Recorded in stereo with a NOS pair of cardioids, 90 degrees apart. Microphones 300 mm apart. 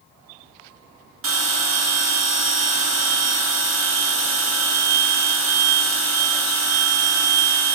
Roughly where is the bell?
Ahead right.